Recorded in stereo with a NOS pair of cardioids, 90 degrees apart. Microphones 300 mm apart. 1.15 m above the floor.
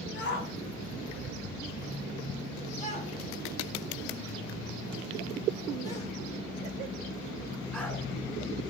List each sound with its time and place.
0.1 s a shout: 35° left, 7.5 m; by 8.0 s 5° left, 9.5 m